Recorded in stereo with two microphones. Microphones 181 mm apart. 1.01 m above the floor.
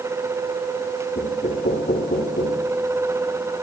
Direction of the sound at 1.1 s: 65° left (ahead or behind).